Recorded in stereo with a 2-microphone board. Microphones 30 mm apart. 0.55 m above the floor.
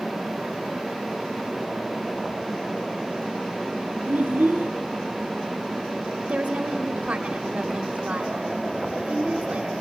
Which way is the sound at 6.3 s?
45° right (ahead or behind).